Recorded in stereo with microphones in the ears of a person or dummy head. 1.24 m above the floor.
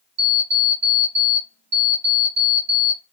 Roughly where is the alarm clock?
Right.